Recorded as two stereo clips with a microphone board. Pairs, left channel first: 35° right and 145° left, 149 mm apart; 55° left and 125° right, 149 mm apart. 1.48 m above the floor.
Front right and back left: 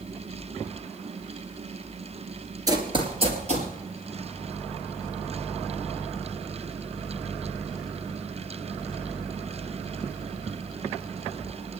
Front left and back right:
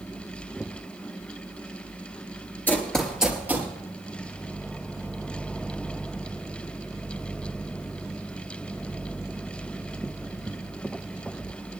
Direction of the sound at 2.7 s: 120° left.